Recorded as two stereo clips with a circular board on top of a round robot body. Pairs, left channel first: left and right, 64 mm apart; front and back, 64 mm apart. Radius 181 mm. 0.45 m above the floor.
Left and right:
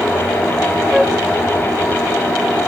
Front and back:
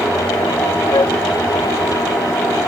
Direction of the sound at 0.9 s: 5° right.